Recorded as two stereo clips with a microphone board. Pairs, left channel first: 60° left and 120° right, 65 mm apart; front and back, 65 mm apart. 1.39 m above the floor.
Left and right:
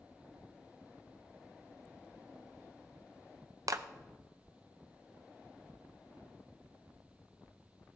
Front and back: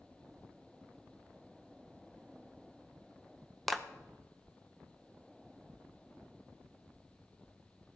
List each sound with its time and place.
3.7 s a clap: 90° right, 0.6 m